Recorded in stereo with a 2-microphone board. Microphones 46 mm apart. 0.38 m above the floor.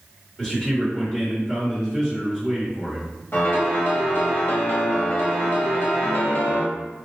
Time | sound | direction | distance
0.4 | a man speaking | 15° left (ahead or behind) | 1.4 m
3.3 | a piano | 55° left (ahead or behind) | 0.9 m